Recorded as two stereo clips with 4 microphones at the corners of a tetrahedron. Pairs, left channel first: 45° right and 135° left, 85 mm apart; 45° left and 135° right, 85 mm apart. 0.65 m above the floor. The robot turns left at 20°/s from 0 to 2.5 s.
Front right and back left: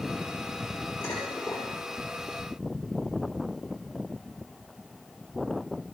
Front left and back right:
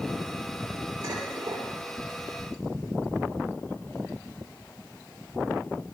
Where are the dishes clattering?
85° right, 8.5 m; by 1.7 s 100° right, 8.5 m.